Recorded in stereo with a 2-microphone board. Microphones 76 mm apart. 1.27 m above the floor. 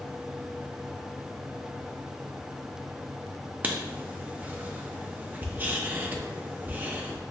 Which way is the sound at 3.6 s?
25° right (ahead or behind).